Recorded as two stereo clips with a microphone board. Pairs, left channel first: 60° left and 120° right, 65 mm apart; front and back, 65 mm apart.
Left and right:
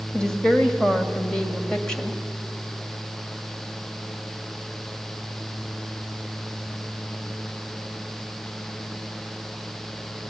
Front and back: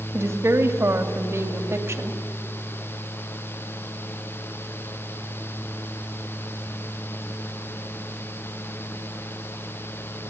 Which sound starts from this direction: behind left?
A woman speaking, at 0.1 s.